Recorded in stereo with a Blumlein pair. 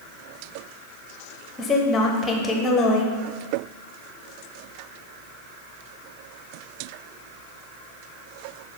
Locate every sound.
1.6 s a woman speaking: 20° left, 0.8 m